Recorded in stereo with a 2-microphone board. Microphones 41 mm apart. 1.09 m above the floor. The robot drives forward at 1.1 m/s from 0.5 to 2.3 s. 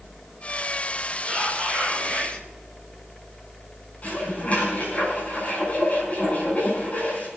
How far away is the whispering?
About 7 m.